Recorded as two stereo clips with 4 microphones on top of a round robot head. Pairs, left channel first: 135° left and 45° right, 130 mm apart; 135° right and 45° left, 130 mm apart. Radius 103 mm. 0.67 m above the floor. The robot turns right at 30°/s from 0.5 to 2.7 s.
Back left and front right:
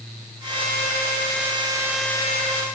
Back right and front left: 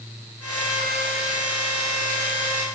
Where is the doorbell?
I don't hear a doorbell.